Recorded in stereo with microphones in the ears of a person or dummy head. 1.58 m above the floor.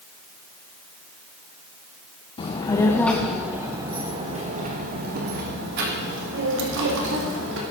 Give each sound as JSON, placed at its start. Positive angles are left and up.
{"t": 2.4, "sound": "a child speaking", "side_deg": 30, "distance_m": 1.1}